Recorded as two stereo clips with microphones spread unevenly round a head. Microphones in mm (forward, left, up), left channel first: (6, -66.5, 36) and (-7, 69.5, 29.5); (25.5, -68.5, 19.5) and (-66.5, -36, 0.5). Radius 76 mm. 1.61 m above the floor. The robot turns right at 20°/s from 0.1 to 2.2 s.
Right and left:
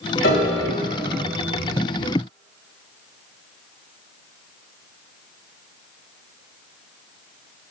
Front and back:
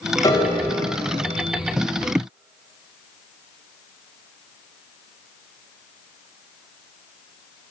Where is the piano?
70° right, 1.5 m; by 0.6 s 60° right, 1.5 m.